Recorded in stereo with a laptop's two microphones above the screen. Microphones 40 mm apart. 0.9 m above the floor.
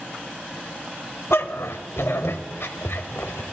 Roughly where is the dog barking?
Left.